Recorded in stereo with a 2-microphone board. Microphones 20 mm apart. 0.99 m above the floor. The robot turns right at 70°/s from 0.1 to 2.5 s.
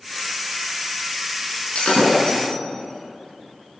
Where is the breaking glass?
85° left, 8.5 m; by 2.6 s 35° left (ahead or behind), 8.5 m.